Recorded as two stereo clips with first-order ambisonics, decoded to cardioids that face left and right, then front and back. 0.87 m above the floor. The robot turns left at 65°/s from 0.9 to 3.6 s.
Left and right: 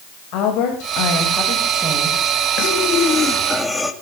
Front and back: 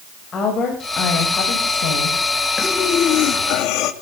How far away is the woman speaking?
About 4.5 m.